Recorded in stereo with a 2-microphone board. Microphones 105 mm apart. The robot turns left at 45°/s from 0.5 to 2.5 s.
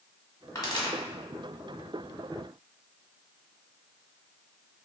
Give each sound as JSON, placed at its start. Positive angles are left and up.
{"t": 0.6, "sound": "a pop", "side_deg": 35, "distance_m": 1.3}